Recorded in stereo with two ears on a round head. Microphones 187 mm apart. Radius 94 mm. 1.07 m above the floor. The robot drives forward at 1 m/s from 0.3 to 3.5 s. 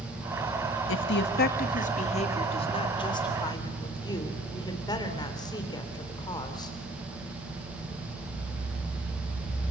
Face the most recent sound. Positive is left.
turn(degrees=20)  # may be behind; listen again after turning